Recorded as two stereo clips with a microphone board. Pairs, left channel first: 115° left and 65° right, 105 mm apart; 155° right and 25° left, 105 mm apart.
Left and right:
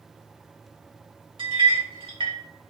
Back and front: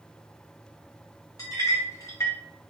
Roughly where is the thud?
No thud in this recording.